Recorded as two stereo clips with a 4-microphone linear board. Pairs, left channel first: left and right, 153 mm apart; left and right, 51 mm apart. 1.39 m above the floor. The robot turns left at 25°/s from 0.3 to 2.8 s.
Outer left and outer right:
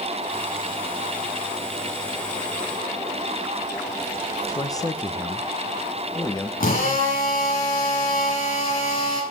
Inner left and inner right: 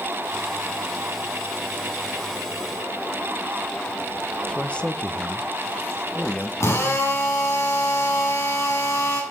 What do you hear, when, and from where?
4.5 s a man speaking: 20° left (ahead or behind), 1.3 m
6.6 s a drill: 65° left (ahead or behind), 8 m